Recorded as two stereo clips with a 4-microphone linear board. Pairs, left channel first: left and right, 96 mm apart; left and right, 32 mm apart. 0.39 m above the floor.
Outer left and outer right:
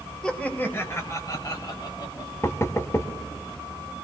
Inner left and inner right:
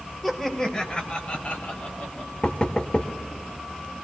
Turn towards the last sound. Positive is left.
turn(degrees=30)  # may be behind; listen again after turning